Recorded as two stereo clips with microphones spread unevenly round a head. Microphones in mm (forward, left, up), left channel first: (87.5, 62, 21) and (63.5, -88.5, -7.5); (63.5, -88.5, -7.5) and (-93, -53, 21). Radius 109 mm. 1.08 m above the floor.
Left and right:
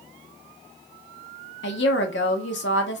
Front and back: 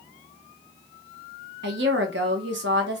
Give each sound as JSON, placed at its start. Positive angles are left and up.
{"t": 1.6, "sound": "a woman speaking", "azimuth_deg": 120, "distance_m": 0.5}